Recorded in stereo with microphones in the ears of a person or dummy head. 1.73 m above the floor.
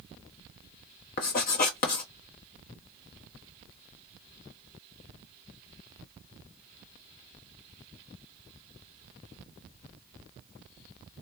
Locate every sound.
1.2 s writing: 50° left (ahead or behind), 1.0 m